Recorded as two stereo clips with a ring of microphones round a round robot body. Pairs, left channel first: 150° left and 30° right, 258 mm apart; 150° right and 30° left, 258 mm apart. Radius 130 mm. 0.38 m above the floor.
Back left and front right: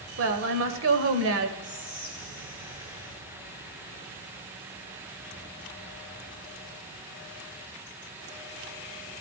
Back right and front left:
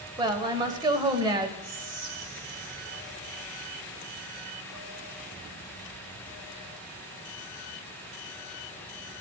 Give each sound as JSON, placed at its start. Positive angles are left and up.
{"t": 0.2, "sound": "a woman speaking", "azimuth_deg": -40, "distance_m": 1.5}
{"t": 1.6, "sound": "whispering", "azimuth_deg": 35, "distance_m": 1.7}